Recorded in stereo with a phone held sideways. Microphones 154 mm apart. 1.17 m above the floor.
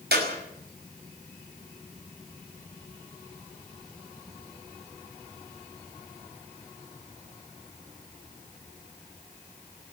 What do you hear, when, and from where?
0.1 s a clap: 85° right, 5.5 m